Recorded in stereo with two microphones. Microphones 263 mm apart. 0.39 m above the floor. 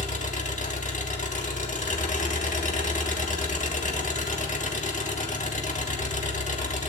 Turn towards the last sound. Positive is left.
turn(degrees=30)  # may be behind; listen again after turning